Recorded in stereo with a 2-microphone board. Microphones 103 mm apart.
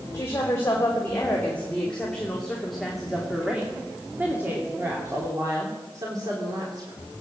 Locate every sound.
0.1 s a woman speaking: 25° left (ahead or behind), 3.5 m; by 7.0 s 50° right (ahead or behind), 3 m